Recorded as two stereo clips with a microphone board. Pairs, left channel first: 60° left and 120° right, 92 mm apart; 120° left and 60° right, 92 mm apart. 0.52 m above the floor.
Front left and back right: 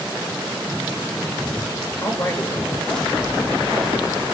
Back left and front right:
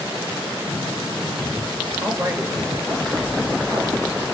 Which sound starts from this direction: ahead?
A man speaking, at 2.0 s.